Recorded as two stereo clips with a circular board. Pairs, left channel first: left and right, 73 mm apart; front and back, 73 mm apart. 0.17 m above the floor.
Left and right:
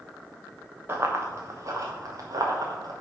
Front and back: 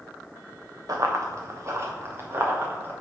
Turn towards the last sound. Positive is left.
turn(degrees=-120)